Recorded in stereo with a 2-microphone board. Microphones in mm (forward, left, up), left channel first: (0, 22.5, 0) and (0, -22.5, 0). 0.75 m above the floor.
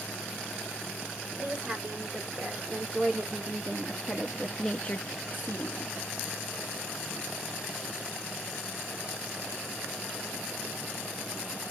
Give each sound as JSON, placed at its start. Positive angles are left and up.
{"t": 1.4, "sound": "a woman speaking", "side_deg": -35, "distance_m": 2.5}